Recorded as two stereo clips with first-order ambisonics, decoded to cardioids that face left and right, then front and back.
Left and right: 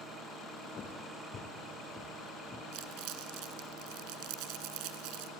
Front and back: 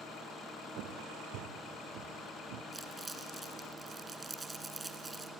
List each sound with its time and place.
0.8 s footsteps: 150° left, 2.5 m; by 2.6 s 165° left, 3 m
2.7 s crumpling: 100° right, 1.7 m